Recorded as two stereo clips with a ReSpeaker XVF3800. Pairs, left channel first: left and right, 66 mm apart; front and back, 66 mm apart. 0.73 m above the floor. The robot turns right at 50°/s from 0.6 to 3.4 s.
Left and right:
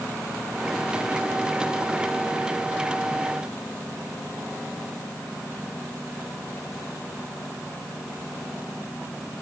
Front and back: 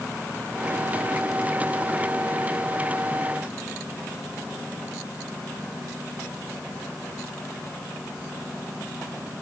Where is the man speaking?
No man speaking in this recording.